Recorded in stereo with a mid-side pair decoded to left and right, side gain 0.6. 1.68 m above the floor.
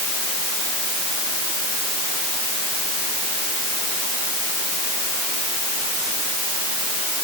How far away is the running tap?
I don't hear a running tap.